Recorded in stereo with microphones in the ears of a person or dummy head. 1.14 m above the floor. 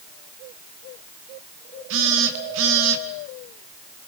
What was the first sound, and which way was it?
A phone buzzing, 75° right (ahead or behind).